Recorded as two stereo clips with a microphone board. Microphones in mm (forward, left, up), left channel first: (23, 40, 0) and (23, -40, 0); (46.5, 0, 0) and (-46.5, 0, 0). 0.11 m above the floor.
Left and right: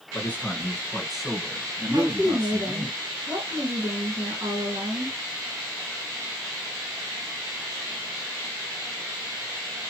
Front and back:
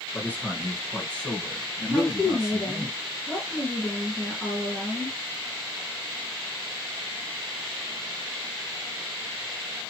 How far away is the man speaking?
About 1.6 m.